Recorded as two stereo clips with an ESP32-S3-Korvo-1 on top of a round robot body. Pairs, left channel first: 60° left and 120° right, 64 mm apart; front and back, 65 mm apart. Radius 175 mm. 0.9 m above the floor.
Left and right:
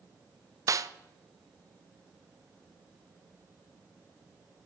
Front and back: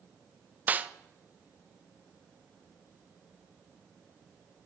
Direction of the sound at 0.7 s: 120° right.